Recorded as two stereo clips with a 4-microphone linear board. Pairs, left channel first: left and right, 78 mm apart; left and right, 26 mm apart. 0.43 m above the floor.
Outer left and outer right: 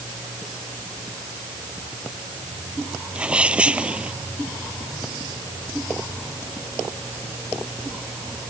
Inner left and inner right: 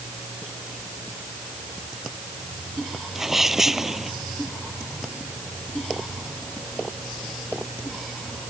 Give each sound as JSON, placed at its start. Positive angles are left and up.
{"t": 3.1, "sound": "a sneeze", "side_deg": -15}